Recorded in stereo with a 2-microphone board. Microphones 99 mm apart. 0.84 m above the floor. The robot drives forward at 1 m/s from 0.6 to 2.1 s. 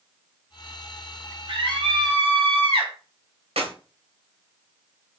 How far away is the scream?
About 3 m.